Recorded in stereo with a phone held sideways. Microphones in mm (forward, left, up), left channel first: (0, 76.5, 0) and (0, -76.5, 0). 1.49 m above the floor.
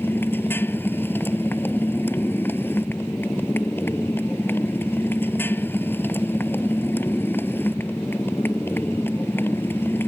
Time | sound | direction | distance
0.0 | a motorcycle | 15° left (ahead or behind) | ?